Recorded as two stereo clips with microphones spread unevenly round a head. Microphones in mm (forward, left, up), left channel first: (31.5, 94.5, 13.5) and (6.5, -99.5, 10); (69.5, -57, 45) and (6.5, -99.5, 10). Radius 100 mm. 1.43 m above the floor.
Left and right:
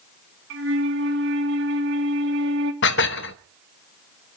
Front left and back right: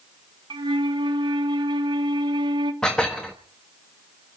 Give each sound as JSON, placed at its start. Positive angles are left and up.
{"t": 0.5, "sound": "a flute", "azimuth_deg": -135, "distance_m": 2.5}
{"t": 2.8, "sound": "dishes clattering", "azimuth_deg": 100, "distance_m": 1.0}